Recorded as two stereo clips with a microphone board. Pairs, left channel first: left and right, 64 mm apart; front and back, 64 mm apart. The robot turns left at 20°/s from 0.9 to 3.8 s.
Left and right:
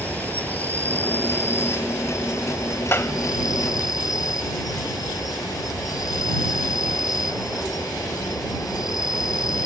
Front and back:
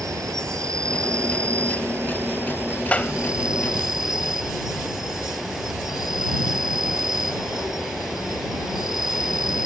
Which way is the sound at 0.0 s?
155° left.